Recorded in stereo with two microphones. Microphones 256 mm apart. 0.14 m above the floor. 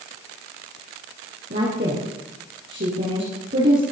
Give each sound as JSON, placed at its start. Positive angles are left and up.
{"t": 1.5, "sound": "a woman speaking", "side_deg": -45, "distance_m": 3.5}